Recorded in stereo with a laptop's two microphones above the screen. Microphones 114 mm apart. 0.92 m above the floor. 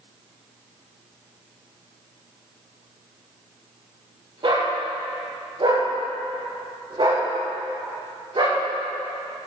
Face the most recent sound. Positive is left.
turn(degrees=-60)  # may be behind; listen again after turning